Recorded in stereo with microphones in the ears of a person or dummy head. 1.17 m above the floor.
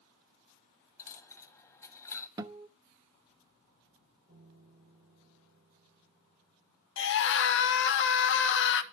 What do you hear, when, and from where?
1.0 s a dropped coin: 15° left (ahead or behind), 1.3 m
2.4 s a guitar: 20° right (ahead or behind), 0.8 m
4.3 s a piano: 20° right (ahead or behind), 9 m
7.0 s a scream: 60° left (ahead or behind), 1.3 m